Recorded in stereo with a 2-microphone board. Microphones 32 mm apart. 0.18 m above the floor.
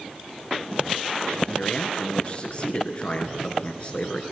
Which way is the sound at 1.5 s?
40° left (ahead or behind).